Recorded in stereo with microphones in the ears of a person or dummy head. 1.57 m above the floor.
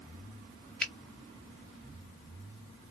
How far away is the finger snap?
About 0.6 m.